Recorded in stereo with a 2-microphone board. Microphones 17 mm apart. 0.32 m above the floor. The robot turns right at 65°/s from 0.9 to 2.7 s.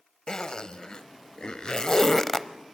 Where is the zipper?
40° left (ahead or behind), 0.9 m; by 2.5 s 20° left (ahead or behind), 0.9 m.